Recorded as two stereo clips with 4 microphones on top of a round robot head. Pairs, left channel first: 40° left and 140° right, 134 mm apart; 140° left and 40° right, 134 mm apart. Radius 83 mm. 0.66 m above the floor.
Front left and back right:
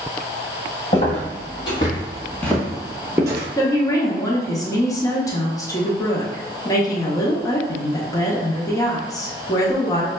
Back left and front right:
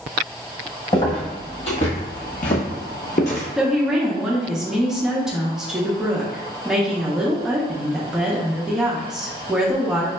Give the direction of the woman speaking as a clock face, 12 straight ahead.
11 o'clock.